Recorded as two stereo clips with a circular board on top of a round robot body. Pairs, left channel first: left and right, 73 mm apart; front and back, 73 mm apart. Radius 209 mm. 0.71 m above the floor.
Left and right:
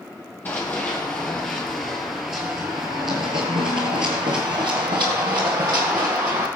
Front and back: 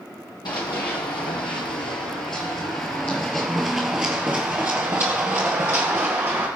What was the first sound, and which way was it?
Running footsteps, 25° left.